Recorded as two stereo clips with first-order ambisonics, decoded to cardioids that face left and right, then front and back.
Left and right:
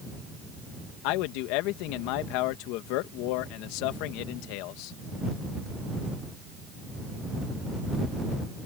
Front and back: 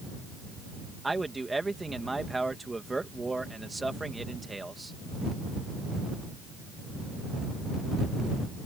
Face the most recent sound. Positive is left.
turn(degrees=100)